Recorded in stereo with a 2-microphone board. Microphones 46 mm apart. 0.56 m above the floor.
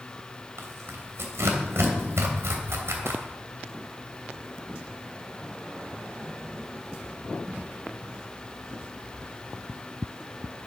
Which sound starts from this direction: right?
Tearing paper, at 0.6 s.